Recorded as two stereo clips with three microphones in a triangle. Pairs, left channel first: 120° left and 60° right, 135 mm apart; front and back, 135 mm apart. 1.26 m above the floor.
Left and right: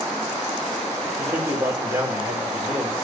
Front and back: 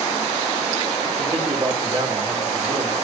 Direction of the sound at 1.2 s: 130° right.